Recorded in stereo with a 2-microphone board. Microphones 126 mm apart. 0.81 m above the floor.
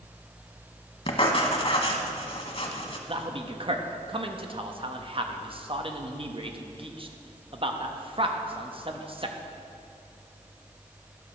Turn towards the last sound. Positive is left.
turn(degrees=-45)  # may be behind; listen again after turning